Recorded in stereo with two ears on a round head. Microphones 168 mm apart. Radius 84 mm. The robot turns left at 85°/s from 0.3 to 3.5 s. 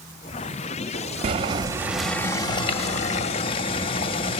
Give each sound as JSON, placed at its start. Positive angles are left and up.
{"t": 1.2, "sound": "boiling", "azimuth_deg": -115, "distance_m": 0.8}